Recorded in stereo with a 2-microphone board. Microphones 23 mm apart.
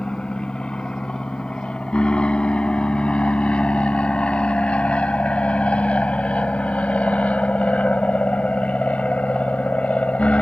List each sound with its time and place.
0.0 s an aircraft: 40° left (ahead or behind); by 10.4 s 65° left (ahead or behind)